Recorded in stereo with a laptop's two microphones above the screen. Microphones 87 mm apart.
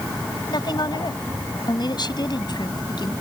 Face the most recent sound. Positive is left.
turn(degrees=60)  # may be behind; listen again after turning